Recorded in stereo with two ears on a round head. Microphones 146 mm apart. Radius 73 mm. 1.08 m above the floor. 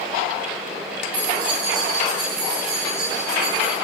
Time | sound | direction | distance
1.1 | keys jangling | 85° right | 6.5 m